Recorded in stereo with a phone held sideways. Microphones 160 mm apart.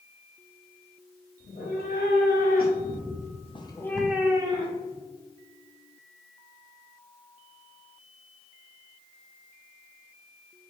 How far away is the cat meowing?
About 1.7 m.